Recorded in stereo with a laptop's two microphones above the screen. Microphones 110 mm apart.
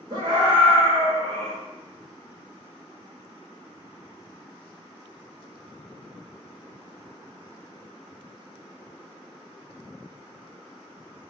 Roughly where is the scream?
Right.